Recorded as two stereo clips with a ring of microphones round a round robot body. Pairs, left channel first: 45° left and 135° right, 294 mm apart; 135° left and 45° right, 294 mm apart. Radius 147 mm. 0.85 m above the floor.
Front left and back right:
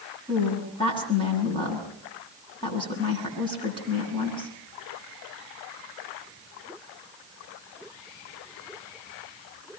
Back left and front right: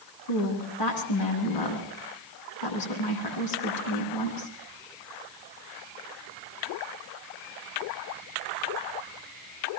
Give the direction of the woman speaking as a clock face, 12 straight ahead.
8 o'clock.